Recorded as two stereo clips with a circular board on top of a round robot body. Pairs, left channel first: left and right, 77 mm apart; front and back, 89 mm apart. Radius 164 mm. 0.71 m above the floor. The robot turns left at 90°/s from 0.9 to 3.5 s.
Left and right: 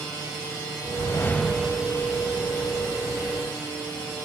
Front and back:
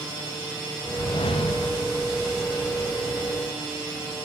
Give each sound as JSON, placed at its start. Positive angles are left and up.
{"t": 0.8, "sound": "a whoosh", "azimuth_deg": 60, "distance_m": 1.0}